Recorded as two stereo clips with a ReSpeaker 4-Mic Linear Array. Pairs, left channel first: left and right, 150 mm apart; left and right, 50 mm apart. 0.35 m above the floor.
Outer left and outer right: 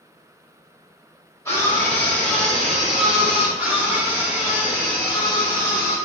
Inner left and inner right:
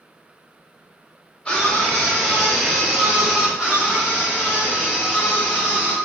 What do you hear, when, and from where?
1.4 s a scream: 20° left (ahead or behind), 1.8 m; by 3.5 s 15° right (ahead or behind), 1.6 m
3.6 s a scream: 15° right (ahead or behind), 1.6 m